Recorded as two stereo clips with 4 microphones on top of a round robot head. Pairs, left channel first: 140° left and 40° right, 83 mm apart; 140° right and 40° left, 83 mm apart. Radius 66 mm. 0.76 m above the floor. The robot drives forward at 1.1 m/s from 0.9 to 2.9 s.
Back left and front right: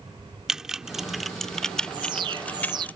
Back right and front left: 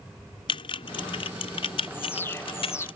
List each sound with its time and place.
0.5 s typing on a keyboard: 125° right; by 2.9 s 150° right
1.9 s an alarm: 70° right; by 2.9 s 80° right